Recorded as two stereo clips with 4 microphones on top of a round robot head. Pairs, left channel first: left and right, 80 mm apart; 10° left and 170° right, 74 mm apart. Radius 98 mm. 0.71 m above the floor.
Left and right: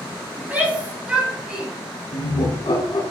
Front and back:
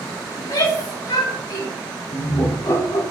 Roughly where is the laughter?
Ahead left.